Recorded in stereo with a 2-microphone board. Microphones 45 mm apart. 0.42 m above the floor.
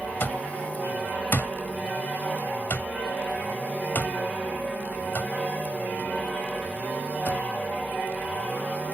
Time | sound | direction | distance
0.2 | an alarm clock | 55° left (ahead or behind) | ?